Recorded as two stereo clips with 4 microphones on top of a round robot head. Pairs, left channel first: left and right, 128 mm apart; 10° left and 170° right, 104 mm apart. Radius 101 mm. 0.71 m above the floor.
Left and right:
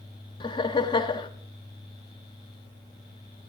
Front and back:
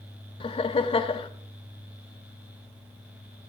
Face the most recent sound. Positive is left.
turn(degrees=40)